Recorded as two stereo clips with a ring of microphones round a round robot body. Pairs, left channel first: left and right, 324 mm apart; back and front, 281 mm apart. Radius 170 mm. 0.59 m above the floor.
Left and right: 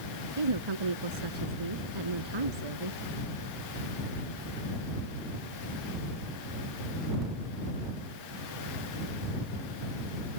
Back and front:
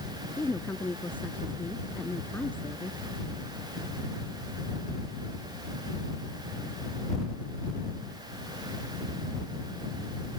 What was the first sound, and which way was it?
A woman speaking, 95° right.